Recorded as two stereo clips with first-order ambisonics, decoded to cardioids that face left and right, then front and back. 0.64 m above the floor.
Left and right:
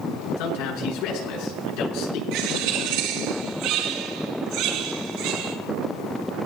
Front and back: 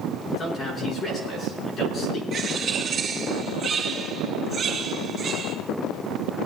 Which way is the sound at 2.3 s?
110° right.